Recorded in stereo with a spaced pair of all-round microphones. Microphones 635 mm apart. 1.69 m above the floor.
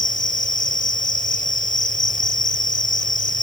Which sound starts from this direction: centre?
An insect, at 0.0 s.